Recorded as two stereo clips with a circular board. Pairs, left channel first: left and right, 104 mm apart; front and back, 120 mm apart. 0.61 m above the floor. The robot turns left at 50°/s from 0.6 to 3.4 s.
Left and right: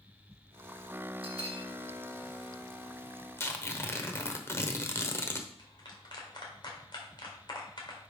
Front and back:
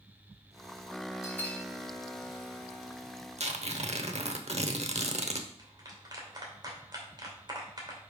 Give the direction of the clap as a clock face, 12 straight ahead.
8 o'clock.